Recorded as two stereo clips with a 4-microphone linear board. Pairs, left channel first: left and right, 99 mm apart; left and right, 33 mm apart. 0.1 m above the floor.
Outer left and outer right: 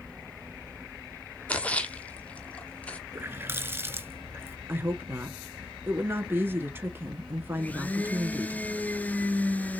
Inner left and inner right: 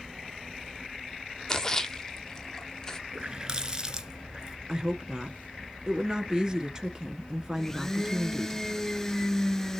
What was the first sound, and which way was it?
A splash, 15° left (ahead or behind).